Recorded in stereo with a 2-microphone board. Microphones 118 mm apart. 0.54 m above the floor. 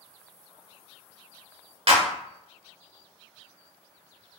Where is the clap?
50° right (ahead or behind), 0.8 m.